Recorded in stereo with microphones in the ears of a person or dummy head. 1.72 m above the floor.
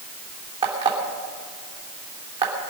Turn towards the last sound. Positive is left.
turn(degrees=-25)  # may be behind; listen again after turning